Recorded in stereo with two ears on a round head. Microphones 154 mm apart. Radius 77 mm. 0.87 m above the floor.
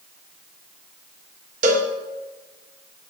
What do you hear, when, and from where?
1.6 s a cowbell: 45° right (ahead or behind), 0.9 m